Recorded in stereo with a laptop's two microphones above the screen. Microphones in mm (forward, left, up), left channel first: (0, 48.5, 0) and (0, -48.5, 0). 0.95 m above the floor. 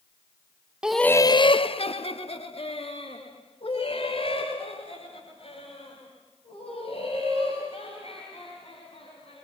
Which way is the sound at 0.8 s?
10° right (ahead or behind).